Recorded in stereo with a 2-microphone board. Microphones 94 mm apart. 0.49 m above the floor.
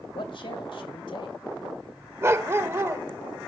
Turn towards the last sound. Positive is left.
turn(degrees=-30)  # may be behind; listen again after turning